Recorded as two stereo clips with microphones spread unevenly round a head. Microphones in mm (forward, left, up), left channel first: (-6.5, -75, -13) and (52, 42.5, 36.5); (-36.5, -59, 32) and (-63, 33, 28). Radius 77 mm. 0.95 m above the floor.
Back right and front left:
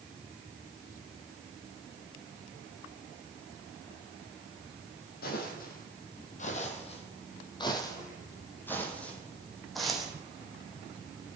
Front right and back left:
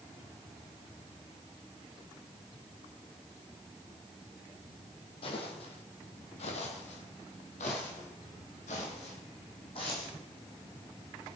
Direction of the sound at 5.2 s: 95° right.